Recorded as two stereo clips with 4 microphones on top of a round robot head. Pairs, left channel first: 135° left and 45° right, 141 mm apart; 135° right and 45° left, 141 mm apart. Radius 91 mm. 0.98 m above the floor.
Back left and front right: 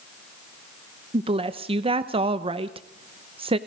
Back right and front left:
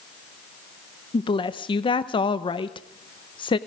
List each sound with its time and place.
1.1 s a woman speaking: 85° right, 0.9 m